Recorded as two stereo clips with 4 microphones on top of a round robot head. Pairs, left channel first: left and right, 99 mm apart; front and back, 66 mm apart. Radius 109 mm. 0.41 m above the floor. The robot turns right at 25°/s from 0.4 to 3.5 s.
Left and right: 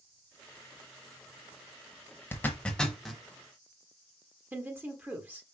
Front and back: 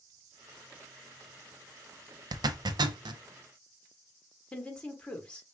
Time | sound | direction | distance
2.3 | a zipper | 160° left | 0.6 m
4.5 | a woman speaking | 50° right | 1.3 m